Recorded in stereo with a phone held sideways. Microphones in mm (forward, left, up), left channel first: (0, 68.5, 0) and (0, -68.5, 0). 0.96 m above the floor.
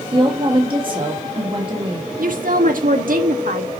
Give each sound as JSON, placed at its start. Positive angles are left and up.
{"t": 0.1, "sound": "a woman speaking", "side_deg": -35, "distance_m": 1.5}
{"t": 2.2, "sound": "a woman speaking", "side_deg": -75, "distance_m": 1.5}